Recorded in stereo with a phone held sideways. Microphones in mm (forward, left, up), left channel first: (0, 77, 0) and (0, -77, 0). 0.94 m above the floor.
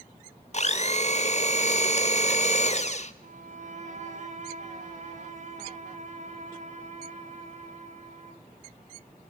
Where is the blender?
45° left (ahead or behind), 1.0 m.